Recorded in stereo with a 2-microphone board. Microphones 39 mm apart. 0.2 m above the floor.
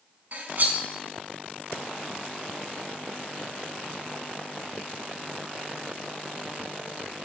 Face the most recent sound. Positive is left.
turn(degrees=-50)  # may be behind; listen again after turning